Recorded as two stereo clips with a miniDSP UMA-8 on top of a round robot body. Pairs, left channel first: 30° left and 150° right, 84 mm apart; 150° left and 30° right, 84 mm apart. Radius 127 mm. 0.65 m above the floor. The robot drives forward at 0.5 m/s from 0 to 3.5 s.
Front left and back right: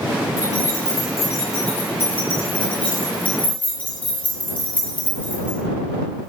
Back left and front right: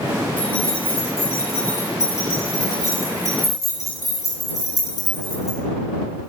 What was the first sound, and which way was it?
Keys jangling, 80° left.